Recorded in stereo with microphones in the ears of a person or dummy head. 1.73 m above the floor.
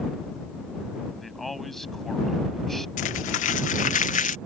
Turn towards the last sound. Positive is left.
turn(degrees=45)  # may be behind; listen again after turning